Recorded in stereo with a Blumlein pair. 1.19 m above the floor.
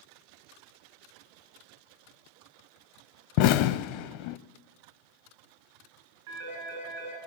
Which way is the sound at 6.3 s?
55° right.